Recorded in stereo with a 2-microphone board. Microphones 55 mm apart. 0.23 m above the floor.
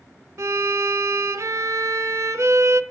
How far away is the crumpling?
No crumpling in this recording.